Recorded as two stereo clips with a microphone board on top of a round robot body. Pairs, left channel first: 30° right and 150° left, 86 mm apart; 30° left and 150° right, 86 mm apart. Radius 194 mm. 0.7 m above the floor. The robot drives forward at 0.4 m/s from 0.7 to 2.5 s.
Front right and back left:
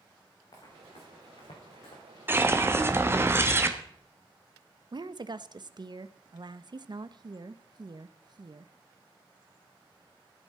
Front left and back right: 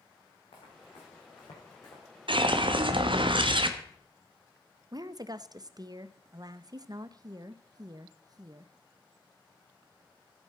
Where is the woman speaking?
175° left, 0.8 m.